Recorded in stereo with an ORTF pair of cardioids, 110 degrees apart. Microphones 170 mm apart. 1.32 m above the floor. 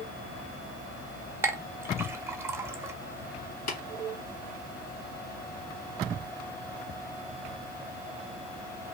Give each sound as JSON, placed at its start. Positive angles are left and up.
{"t": 1.4, "sound": "a clink", "azimuth_deg": -15, "distance_m": 0.5}
{"t": 3.7, "sound": "tapping", "azimuth_deg": 60, "distance_m": 1.2}